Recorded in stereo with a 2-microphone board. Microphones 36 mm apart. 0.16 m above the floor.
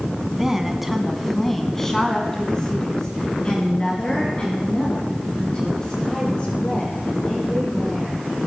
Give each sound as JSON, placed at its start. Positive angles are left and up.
{"t": 0.3, "sound": "a woman speaking", "side_deg": -10, "distance_m": 1.3}